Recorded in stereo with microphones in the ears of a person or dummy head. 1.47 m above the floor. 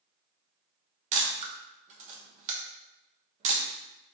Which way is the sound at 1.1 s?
40° right (ahead or behind).